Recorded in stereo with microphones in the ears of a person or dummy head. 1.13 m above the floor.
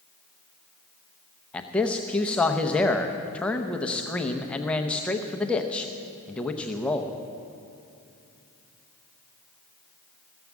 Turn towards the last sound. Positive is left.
turn(degrees=5)  # may be behind; listen again after turning